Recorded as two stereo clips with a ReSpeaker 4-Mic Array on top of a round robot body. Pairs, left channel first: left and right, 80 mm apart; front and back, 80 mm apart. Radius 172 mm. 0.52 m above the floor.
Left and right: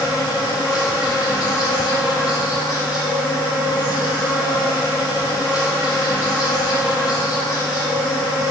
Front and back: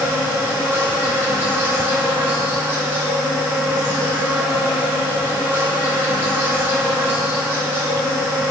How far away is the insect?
About 4 m.